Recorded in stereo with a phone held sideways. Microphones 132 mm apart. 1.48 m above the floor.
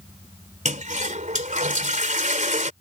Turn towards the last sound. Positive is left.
turn(degrees=-75)  # may be behind; listen again after turning